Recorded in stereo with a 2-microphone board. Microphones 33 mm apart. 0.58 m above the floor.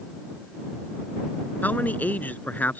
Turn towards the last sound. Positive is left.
turn(degrees=60)  # may be behind; listen again after turning